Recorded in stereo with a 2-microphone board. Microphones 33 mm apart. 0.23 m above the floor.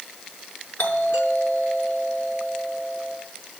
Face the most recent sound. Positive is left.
turn(degrees=70)  # may be behind; listen again after turning